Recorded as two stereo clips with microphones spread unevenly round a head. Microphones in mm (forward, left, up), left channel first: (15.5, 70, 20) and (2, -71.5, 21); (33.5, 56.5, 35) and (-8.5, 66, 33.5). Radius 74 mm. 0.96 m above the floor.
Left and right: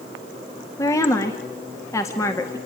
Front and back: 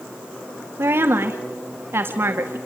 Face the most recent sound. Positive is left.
turn(degrees=155)